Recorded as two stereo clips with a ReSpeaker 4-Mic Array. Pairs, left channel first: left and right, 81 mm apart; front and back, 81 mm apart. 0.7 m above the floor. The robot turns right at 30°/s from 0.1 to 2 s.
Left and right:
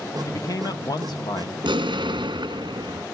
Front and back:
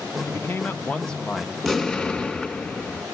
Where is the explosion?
90° right, 1.8 m; by 3.0 s 80° right, 1.8 m.